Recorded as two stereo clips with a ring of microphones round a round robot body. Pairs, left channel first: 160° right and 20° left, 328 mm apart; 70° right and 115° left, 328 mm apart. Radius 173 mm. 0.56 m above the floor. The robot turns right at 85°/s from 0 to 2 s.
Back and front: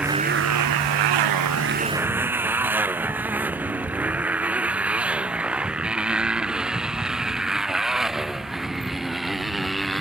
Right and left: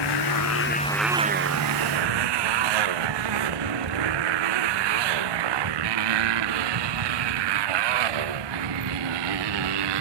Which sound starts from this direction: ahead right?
A motorcycle, at 0.0 s.